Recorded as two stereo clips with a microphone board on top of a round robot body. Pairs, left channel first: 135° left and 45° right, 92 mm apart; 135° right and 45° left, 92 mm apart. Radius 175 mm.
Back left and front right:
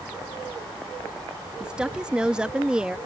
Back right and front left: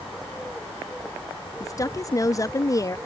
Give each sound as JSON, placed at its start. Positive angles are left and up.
{"t": 1.6, "sound": "a woman speaking", "azimuth_deg": -120}